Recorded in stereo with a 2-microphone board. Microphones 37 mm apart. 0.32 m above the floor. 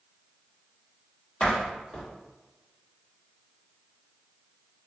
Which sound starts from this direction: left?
A door slam, at 1.4 s.